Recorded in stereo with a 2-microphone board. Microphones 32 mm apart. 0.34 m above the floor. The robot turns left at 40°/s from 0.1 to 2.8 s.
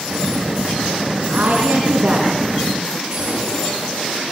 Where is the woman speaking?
65° right (ahead or behind), 3.5 m; by 3.0 s 10° right (ahead or behind), 3.5 m.